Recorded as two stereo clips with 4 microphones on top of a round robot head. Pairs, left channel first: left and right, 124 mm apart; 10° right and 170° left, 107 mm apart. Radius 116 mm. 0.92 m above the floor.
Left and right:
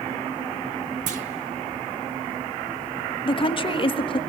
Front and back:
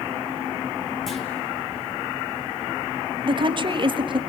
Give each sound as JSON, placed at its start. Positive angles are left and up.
{"t": 1.1, "sound": "a clunk", "azimuth_deg": -95, "distance_m": 0.7}
{"t": 3.2, "sound": "a woman speaking", "azimuth_deg": 135, "distance_m": 1.4}